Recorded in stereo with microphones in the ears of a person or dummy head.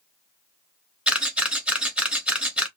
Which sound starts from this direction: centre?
A camera shutter, at 1.1 s.